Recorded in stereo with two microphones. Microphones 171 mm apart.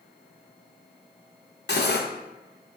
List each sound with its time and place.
1.7 s cutlery clinking: 80° left, 0.6 m